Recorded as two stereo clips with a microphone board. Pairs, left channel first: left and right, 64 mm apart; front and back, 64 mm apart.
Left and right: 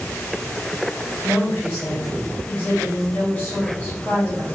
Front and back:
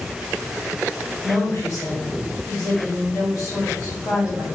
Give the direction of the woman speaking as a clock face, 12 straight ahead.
11 o'clock.